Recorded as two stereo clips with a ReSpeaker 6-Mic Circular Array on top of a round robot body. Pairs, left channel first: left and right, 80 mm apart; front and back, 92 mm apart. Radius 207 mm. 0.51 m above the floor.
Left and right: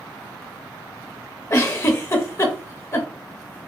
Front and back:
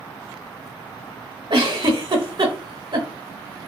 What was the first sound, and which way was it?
A giggle, 145° left.